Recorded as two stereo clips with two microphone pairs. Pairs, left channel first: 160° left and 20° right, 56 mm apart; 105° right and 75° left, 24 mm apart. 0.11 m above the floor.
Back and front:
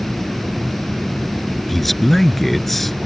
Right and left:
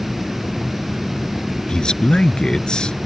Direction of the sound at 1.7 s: 120° right.